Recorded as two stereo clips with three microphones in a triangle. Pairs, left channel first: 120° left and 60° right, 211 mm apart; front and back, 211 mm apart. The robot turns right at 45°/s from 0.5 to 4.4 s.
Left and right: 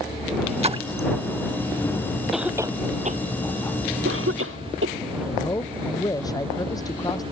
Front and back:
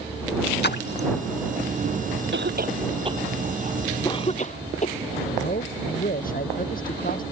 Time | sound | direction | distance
0.6 | a splash | 10° right | ?
2.3 | a cough | 150° right | ?
5.2 | a man speaking | 45° left | ?